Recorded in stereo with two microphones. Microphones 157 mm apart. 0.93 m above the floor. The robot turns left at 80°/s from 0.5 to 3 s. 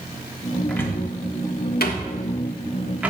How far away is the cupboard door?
About 1.3 m.